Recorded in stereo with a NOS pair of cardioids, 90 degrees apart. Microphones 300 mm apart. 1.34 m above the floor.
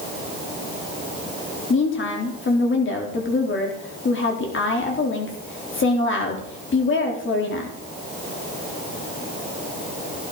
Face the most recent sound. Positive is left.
turn(degrees=40)